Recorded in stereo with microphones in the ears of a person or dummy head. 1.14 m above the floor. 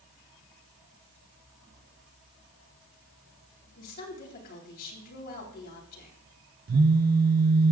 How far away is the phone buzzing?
About 0.8 m.